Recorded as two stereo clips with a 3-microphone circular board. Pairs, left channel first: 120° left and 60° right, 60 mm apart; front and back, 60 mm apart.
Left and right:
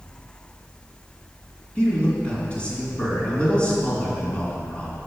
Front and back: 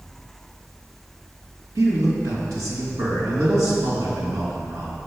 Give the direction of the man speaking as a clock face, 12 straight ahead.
6 o'clock.